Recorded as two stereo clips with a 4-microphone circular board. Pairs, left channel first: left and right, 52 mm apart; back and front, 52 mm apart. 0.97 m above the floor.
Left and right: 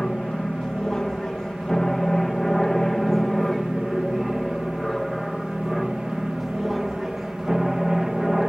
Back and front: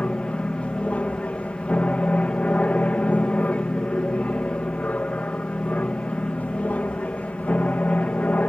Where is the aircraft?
155° left; by 8.5 s 175° right.